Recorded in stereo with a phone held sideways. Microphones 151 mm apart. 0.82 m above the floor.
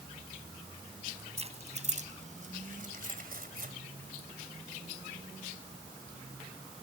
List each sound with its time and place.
1.4 s keys jangling: 45° right (ahead or behind); by 3.7 s 85° right